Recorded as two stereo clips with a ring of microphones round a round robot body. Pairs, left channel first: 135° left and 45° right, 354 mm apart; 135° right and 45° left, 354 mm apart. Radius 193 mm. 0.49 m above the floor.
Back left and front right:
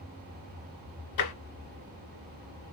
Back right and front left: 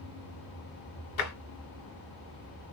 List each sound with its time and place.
1.2 s tapping: 175° left, 1.0 m